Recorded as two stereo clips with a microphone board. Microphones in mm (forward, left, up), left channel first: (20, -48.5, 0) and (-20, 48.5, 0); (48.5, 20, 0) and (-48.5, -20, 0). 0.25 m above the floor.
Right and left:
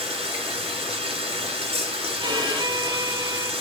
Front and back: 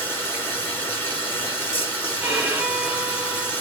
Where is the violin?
130° left, 1.1 m.